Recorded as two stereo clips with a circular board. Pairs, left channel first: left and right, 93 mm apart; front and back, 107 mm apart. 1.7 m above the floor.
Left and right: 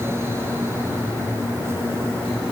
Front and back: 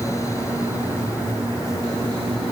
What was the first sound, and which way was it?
Only background noise.